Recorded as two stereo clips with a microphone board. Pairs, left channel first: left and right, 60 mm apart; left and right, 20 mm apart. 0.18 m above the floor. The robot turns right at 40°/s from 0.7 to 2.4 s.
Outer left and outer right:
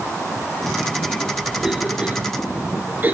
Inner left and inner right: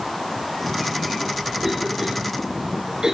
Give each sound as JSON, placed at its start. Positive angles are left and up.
{"t": 1.6, "sound": "a cough", "side_deg": -5, "distance_m": 3.0}